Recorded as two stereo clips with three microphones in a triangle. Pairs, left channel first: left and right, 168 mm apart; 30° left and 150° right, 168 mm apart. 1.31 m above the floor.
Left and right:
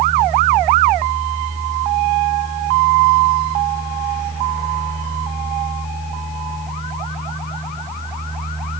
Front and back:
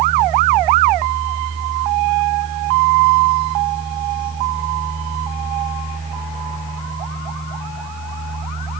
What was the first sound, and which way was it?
Only background noise.